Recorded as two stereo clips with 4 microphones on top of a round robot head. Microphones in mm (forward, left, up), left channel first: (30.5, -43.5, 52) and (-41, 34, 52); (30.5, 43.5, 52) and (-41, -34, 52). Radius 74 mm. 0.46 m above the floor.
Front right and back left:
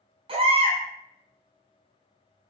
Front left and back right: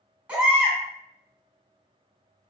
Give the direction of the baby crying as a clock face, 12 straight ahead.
7 o'clock.